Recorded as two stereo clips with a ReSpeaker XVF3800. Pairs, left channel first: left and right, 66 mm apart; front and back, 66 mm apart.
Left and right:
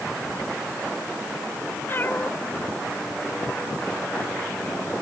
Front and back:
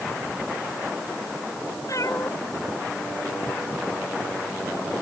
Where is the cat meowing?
30° left.